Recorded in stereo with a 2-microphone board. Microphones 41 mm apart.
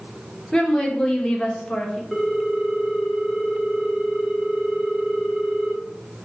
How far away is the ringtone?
About 0.7 m.